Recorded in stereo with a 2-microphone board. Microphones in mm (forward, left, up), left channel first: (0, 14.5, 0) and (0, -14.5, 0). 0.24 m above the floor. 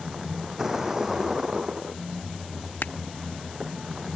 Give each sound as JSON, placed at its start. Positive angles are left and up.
{"t": 0.0, "sound": "a vehicle", "side_deg": -15}
{"t": 2.8, "sound": "crushing", "side_deg": 85}